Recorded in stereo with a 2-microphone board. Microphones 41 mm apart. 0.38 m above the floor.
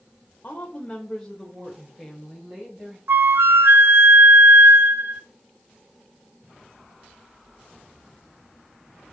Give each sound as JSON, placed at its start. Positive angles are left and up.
{"t": 0.4, "sound": "a woman speaking", "side_deg": 35, "distance_m": 1.2}
{"t": 3.1, "sound": "a flute", "side_deg": -65, "distance_m": 0.7}